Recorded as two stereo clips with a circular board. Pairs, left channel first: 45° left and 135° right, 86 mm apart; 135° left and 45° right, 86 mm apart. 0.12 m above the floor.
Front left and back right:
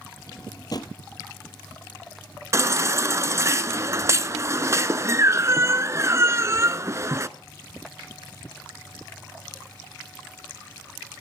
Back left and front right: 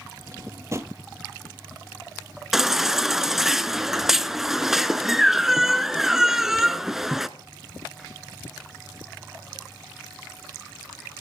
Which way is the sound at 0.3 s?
10° left.